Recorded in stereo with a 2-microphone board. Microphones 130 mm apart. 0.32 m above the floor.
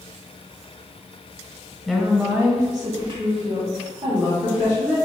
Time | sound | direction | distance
1.9 | a woman speaking | centre (ahead or behind) | 1.3 m